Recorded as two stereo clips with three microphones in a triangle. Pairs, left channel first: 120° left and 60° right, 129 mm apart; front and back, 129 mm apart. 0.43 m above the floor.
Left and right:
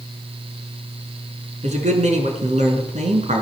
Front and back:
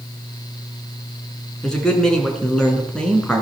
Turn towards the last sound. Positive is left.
turn(degrees=-85)